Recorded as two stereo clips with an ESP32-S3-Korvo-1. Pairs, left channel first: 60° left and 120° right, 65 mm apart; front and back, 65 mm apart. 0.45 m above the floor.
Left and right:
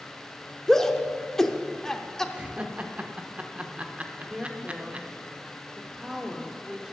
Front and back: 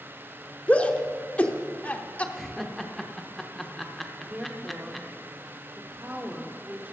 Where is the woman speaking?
170° left, 1.0 m.